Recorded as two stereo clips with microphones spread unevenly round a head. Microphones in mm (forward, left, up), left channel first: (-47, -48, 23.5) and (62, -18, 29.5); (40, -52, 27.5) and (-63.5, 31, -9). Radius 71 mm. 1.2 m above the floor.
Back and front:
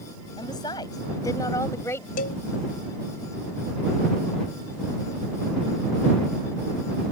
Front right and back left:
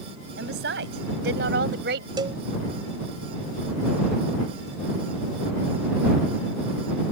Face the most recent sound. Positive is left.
turn(degrees=-155)